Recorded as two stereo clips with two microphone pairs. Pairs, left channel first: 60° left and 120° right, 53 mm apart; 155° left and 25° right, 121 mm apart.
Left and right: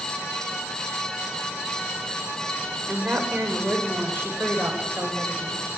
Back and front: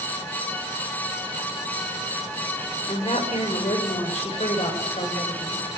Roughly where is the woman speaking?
Behind.